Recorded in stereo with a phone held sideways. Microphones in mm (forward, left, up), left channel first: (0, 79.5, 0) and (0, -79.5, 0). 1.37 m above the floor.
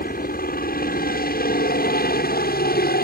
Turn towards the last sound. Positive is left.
turn(degrees=75)  # may be behind; listen again after turning